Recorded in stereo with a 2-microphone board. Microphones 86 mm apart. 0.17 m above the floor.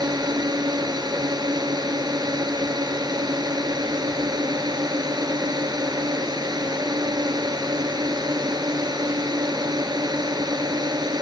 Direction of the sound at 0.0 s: 50° right (ahead or behind).